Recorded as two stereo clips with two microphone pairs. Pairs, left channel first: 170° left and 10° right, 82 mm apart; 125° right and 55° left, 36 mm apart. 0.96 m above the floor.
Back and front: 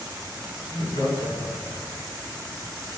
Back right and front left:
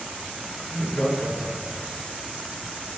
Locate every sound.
0.6 s laughter: 160° left, 7 m